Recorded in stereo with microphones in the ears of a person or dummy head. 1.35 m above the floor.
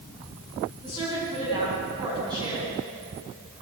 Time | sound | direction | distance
0.8 | a woman speaking | 25° right (ahead or behind) | 10 m